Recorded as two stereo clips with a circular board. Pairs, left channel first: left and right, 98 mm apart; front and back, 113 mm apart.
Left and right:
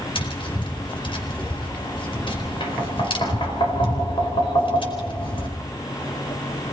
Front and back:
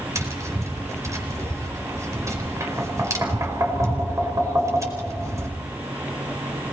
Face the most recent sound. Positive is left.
turn(degrees=115)